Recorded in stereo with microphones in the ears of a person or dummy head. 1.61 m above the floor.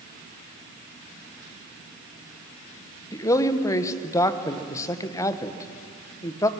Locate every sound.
3.1 s a man speaking: 15° left (ahead or behind), 1.2 m